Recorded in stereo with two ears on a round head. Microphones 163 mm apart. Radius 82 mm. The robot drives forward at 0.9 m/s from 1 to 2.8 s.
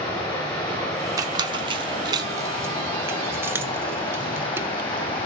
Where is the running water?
20° left (ahead or behind), 6 m; by 5.3 s 25° left (ahead or behind), 4.5 m.